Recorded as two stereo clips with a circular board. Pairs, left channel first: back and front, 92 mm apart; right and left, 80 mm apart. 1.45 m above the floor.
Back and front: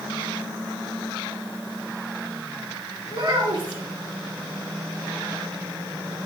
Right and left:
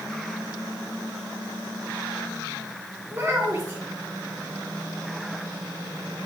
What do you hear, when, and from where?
3.1 s a child speaking: 25° left, 2.5 m